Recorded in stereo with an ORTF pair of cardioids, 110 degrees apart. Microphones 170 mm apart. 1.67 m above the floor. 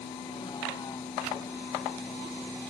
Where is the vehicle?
30° left; by 2.7 s 5° left.